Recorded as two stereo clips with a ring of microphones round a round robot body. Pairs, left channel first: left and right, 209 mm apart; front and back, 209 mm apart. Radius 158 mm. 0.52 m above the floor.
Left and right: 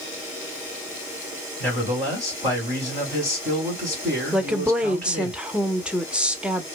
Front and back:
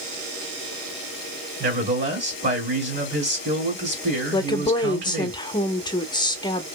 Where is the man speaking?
175° left, 2 m.